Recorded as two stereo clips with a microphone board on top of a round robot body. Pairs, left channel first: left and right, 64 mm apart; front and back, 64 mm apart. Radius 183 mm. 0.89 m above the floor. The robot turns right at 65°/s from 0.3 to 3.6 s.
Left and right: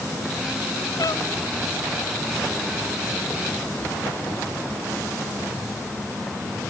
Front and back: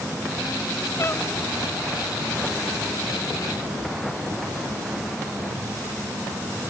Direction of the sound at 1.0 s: 50° left.